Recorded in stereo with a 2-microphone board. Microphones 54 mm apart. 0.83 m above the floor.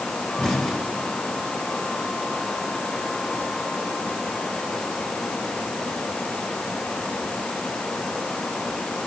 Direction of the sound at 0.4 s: 5° left (ahead or behind).